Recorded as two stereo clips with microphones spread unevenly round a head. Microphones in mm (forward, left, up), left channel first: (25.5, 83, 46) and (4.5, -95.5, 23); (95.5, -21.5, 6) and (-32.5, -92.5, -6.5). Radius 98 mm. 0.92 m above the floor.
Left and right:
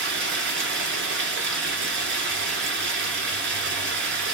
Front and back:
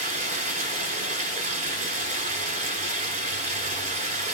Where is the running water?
120° right, 2.5 m.